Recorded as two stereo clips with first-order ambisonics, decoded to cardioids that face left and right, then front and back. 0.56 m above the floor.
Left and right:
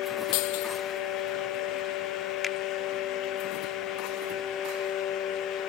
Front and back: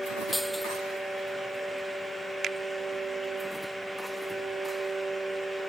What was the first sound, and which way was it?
Breaking glass, 90° left.